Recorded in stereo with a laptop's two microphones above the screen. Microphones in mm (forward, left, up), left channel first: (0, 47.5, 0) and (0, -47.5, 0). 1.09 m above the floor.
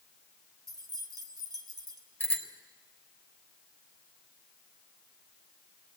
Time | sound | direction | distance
0.7 | keys jangling | 45° right (ahead or behind) | 2.5 m
2.2 | a bicycle bell | 15° left (ahead or behind) | 3.5 m